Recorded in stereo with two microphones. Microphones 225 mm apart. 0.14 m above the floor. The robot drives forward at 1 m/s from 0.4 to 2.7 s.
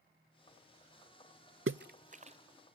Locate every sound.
1.7 s a splash: 60° right (ahead or behind), 0.5 m; by 2.4 s 30° right (ahead or behind), 1.0 m